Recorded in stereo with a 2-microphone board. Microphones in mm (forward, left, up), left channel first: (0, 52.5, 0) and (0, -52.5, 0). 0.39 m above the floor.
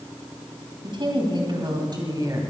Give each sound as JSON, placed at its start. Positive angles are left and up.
{"t": 0.8, "sound": "a woman speaking", "side_deg": -50, "distance_m": 3.0}